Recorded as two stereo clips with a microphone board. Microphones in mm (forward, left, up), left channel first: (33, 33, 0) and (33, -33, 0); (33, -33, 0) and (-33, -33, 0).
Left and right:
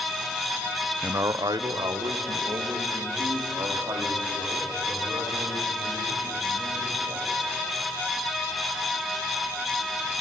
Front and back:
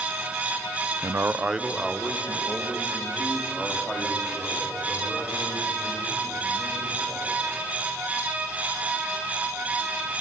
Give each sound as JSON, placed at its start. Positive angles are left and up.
{"t": 1.0, "sound": "a man speaking", "azimuth_deg": -145, "distance_m": 0.5}